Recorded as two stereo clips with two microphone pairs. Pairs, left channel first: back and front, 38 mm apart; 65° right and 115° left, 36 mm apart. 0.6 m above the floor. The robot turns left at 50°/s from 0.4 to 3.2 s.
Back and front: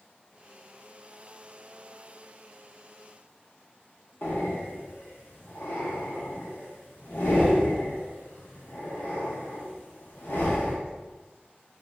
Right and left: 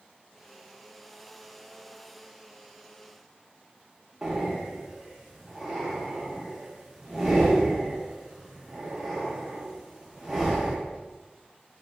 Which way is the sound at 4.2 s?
165° right.